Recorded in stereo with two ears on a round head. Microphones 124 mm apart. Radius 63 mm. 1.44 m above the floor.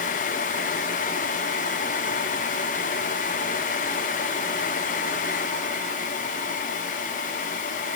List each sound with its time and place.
Only background noise.